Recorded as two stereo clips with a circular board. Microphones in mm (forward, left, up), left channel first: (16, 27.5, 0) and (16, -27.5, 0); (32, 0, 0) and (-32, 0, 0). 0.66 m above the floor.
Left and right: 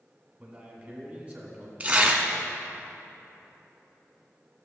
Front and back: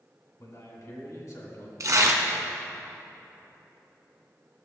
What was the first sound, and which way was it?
A man speaking, 20° right.